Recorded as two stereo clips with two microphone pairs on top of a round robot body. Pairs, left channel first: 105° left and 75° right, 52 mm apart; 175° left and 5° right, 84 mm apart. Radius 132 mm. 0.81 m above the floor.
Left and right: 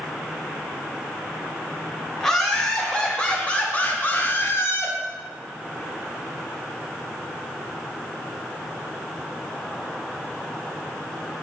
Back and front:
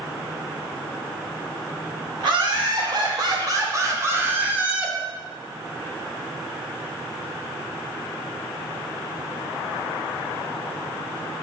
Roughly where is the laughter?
Ahead.